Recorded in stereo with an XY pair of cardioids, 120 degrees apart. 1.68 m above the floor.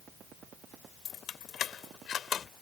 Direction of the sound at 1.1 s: 55° left.